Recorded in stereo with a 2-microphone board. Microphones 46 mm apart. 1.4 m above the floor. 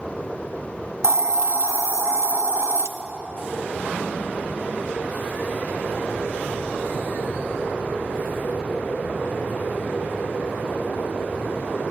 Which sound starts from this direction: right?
A hiss, at 1.0 s.